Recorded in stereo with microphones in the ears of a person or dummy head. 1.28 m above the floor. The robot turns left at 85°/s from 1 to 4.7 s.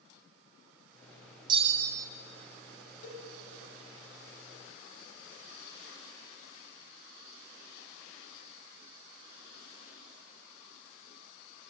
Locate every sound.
1.5 s a bell: 25° right, 1.0 m; by 2.1 s 80° right, 1.0 m
3.0 s a cowbell: 80° left, 5 m